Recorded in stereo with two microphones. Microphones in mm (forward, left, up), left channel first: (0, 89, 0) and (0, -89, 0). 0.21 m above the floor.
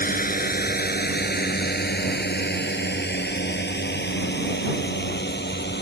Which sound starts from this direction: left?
A drone, at 0.0 s.